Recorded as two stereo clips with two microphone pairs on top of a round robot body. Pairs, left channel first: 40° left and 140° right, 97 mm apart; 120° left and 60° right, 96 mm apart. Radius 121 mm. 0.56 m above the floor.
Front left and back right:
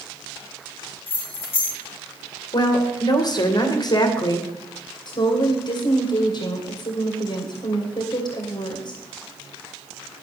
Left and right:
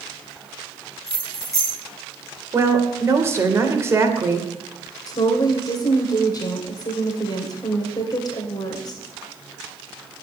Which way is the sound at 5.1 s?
75° left.